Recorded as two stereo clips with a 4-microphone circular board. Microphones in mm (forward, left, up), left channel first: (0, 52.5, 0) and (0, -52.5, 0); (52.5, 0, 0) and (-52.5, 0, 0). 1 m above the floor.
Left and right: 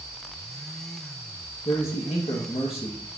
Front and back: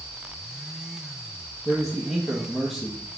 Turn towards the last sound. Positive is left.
turn(degrees=95)